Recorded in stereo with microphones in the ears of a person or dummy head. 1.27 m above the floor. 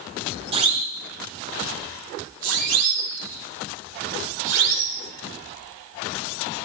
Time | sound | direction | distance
0.5 | a siren | 35° right (ahead or behind) | 3 m